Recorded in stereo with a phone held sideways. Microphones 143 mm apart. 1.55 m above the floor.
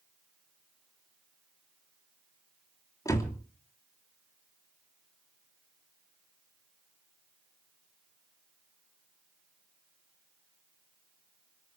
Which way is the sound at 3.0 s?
25° left (ahead or behind).